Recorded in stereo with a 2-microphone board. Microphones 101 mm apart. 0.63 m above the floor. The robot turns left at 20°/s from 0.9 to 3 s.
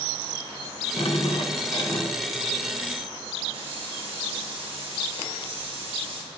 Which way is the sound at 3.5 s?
65° right (ahead or behind).